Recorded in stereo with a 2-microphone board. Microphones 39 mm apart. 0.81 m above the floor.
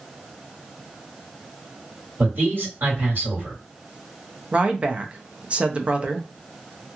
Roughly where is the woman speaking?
Right.